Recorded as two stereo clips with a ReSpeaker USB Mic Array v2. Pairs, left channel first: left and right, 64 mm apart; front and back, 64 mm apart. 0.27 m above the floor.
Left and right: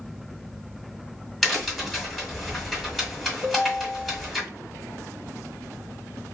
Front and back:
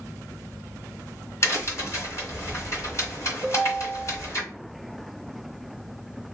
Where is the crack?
5° left, 1.6 m.